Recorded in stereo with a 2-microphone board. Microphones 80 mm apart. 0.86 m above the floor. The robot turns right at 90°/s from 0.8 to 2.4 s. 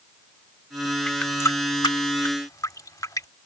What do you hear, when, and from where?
1.1 s a running tap: 10° left (ahead or behind); by 3.3 s 50° left (ahead or behind)